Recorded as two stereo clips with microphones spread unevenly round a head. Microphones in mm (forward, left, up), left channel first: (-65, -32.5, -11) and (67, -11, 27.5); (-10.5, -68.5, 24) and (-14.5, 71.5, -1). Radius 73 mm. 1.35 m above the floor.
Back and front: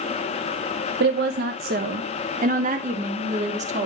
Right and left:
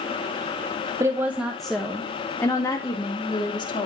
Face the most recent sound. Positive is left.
turn(degrees=-30)